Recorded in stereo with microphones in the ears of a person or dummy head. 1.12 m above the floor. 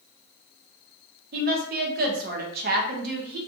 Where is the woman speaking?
40° right (ahead or behind), 0.6 m.